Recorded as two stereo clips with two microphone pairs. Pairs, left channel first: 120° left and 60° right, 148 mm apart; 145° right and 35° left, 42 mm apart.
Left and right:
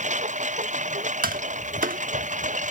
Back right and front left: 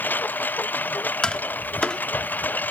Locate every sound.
0.0 s a lawn mower: 95° right
1.2 s tapping: 75° right